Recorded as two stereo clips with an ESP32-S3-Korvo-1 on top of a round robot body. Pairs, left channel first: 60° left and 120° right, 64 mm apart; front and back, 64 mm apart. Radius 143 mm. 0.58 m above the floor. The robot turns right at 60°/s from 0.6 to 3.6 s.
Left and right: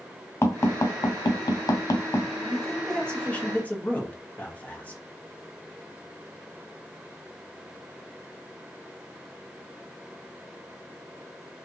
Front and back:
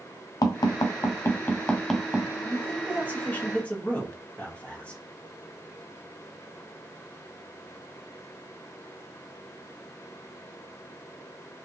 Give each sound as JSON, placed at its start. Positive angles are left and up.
{"t": 0.4, "sound": "tapping", "azimuth_deg": 10, "distance_m": 0.8}
{"t": 2.5, "sound": "a man speaking", "azimuth_deg": -35, "distance_m": 1.2}